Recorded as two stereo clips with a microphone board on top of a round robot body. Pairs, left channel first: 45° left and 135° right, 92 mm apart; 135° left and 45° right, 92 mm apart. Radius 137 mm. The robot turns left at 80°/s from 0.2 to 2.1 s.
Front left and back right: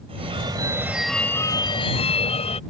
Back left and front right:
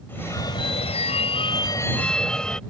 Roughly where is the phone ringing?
Behind right.